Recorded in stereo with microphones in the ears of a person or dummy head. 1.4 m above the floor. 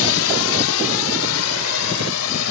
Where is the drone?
70° left (ahead or behind); by 2.5 s 75° left (ahead or behind).